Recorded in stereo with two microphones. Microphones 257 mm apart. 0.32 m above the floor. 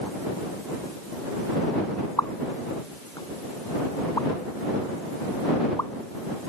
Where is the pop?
15° left (ahead or behind).